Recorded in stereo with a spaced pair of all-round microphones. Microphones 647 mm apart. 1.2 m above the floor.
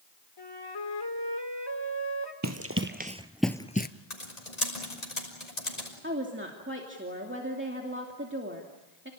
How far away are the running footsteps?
About 1.7 m.